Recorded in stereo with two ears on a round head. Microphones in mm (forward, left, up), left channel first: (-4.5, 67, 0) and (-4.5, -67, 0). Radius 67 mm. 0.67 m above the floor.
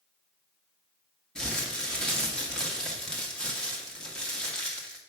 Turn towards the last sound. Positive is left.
turn(degrees=5)  # may be behind; listen again after turning